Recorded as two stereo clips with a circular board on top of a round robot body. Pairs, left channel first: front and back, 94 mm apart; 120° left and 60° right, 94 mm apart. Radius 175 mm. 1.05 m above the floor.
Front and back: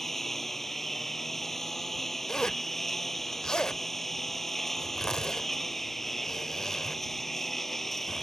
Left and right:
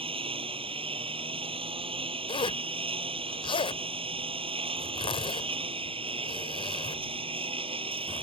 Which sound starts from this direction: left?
A zipper, at 2.3 s.